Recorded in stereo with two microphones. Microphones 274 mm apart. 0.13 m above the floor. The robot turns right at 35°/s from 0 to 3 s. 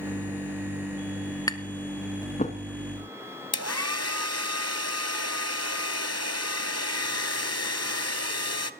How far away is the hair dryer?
About 0.7 m.